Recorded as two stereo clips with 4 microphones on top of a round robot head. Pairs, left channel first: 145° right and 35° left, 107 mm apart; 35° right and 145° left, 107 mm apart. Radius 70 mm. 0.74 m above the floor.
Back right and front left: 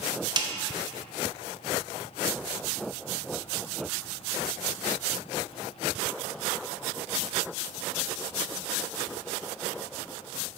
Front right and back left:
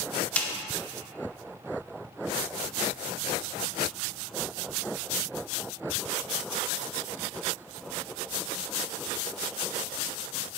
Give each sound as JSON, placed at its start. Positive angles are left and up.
{"t": 0.4, "sound": "a snare drum", "azimuth_deg": 35, "distance_m": 0.8}